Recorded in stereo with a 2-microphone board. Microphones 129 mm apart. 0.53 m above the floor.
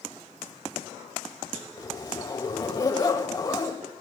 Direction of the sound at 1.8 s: 25° left (ahead or behind).